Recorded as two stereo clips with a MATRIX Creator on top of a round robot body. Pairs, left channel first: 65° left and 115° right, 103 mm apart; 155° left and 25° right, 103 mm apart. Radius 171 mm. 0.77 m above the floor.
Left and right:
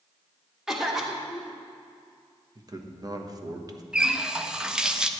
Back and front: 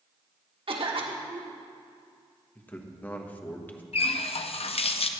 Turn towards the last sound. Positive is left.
turn(degrees=165)